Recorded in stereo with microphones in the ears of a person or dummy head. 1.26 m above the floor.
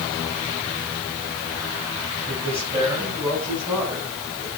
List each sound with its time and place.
2.3 s a man speaking: 25° right (ahead or behind), 7 m